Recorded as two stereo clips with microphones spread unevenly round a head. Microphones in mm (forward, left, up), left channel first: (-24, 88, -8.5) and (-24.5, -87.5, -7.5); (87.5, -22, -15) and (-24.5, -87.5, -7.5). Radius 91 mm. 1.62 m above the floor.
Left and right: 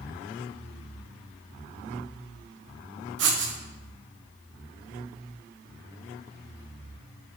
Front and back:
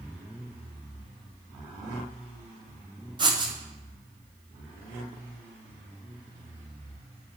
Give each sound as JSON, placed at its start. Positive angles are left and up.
{"t": 3.2, "sound": "writing", "azimuth_deg": -100, "distance_m": 0.7}